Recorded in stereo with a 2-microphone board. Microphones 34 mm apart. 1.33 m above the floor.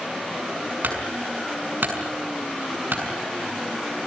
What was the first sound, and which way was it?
A clunk, 75° right (ahead or behind).